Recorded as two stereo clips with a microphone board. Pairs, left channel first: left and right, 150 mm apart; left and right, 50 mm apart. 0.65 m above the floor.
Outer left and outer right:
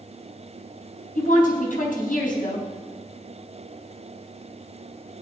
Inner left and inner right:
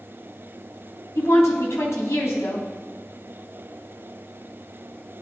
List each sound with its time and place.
1.1 s a woman speaking: 65° left (ahead or behind), 4 m